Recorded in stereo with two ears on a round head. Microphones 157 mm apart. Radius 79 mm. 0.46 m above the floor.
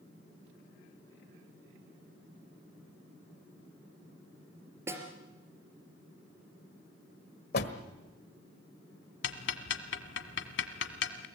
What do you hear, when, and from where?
4.9 s a snare drum: 15° right (ahead or behind), 3 m
7.5 s a door slam: 60° left (ahead or behind), 1.5 m
9.2 s ticking: 70° left (ahead or behind), 1.4 m